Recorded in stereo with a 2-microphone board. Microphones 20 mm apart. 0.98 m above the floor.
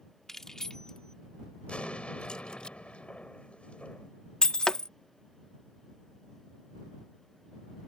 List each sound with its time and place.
0.3 s keys jangling: 20° left (ahead or behind); by 2.7 s 50° left (ahead or behind)
1.7 s an explosion: 90° left
4.4 s breaking glass: 45° left (ahead or behind)